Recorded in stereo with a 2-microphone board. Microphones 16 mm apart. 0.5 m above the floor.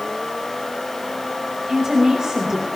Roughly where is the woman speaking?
Right.